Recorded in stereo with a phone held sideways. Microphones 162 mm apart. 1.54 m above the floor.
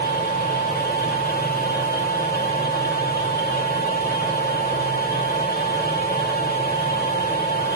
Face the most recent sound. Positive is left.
turn(degrees=80)